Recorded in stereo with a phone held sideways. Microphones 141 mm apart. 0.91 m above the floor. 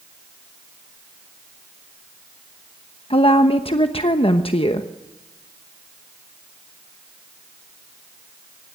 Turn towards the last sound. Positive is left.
turn(degrees=40)  # may be behind; listen again after turning